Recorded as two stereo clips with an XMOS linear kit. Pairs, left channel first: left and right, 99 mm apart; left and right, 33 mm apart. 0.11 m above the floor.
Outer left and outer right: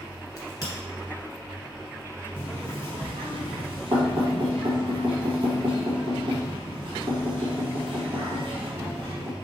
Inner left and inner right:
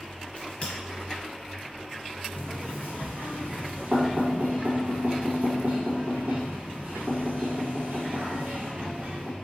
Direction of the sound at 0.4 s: 40° left (ahead or behind).